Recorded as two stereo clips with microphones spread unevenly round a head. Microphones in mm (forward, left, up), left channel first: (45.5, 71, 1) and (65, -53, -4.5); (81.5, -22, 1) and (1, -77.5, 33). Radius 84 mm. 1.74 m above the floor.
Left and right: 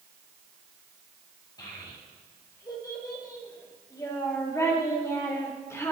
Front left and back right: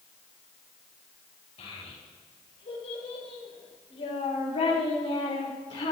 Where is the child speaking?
40° left, 7 m; by 5.9 s 30° left, 4.5 m.